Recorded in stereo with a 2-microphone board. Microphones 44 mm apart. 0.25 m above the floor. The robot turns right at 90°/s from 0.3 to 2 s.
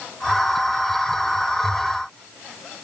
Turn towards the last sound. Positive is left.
No sound to turn to.